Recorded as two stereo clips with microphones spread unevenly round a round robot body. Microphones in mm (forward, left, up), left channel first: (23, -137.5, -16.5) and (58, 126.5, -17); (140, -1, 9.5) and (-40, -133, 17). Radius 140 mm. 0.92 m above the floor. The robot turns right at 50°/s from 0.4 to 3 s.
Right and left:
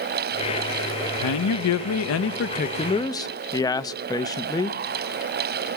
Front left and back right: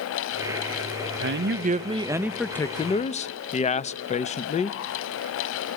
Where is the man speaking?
110° right, 0.6 m; by 4.8 s 20° right, 0.6 m.